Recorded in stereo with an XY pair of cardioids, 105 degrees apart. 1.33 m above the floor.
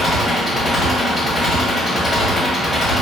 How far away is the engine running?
About 1.4 m.